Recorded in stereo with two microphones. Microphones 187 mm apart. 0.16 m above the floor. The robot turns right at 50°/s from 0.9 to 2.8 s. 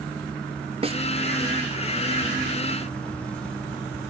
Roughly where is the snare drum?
Right.